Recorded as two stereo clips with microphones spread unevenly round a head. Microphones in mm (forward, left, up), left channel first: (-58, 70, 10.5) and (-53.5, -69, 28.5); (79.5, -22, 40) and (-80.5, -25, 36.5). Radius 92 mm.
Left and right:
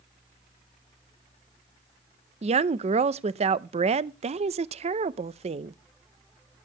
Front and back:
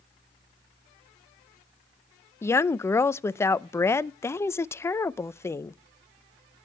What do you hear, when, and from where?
2.4 s a woman speaking: 65° right, 0.6 m